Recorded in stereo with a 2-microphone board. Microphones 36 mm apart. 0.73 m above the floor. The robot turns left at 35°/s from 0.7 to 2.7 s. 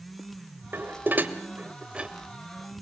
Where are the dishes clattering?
75° right (ahead or behind), 2 m; by 2.8 s 5° right (ahead or behind), 2 m.